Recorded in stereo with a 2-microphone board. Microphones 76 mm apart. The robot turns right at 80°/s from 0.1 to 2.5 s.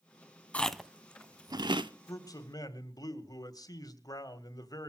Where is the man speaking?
60° left, 2.0 m; by 4.9 s 95° left, 2.0 m.